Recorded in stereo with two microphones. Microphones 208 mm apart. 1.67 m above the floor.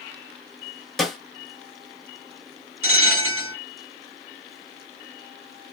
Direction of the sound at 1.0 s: Centre (ahead or behind).